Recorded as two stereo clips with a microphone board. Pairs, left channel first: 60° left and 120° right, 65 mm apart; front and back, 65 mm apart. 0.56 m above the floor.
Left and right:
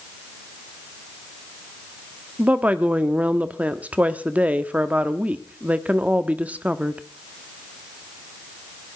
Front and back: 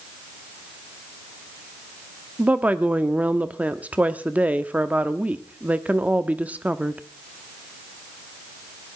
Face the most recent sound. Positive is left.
turn(degrees=-150)